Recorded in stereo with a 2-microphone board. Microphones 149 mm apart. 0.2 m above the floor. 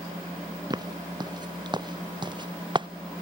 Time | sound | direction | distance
0.7 | footsteps | 30° right (ahead or behind) | ?